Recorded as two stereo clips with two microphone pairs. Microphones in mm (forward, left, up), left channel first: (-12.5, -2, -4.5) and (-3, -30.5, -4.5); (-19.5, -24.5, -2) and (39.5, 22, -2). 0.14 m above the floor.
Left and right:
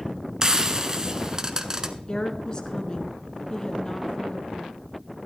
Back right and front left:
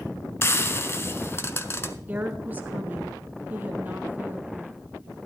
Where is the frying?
120° right, 0.7 m.